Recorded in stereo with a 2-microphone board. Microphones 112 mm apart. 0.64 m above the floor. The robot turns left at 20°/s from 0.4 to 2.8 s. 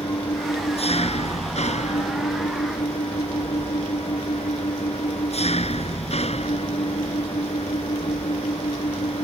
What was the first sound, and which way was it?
An engine running, 120° left.